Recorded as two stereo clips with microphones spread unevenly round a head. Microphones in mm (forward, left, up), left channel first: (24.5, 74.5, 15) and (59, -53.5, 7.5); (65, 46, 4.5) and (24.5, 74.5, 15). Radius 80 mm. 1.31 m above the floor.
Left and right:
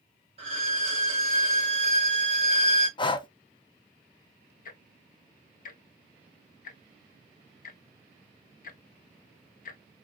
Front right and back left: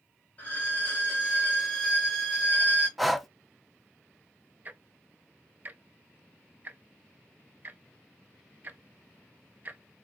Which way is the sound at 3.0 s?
50° left.